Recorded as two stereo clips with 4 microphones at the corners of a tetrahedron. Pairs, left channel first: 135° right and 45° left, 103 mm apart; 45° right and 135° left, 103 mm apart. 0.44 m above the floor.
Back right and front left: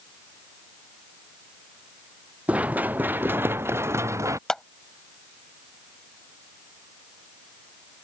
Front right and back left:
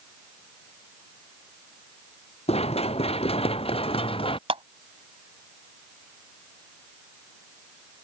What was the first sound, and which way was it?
Running footsteps, 35° right.